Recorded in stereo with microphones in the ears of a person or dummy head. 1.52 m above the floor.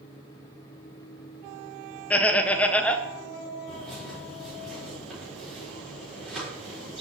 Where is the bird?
Centre (ahead or behind), 4 m.